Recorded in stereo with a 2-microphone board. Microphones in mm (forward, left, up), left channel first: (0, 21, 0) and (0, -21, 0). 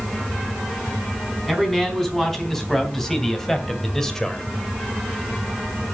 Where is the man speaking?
5° left (ahead or behind), 4.5 m; by 4.5 s 10° left (ahead or behind), 1.7 m.